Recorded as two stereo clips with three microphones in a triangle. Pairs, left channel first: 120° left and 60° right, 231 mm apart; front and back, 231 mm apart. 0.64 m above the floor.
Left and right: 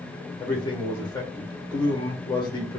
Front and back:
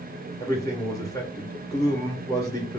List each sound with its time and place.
0.4 s a man speaking: 65° left, 0.6 m